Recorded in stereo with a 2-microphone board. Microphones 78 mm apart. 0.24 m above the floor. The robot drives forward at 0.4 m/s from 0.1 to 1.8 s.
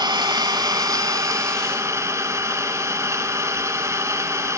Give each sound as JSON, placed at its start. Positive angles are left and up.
{"t": 0.0, "sound": "an engine running", "side_deg": -60, "distance_m": 0.8}